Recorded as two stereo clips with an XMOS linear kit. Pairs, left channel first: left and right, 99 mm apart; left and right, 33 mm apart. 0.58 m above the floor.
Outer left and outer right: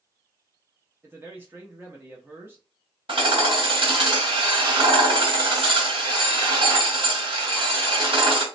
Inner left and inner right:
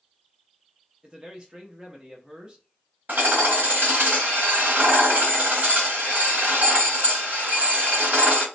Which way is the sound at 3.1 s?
60° right (ahead or behind).